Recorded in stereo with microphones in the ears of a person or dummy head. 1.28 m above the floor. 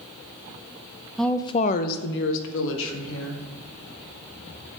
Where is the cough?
I don't hear a cough.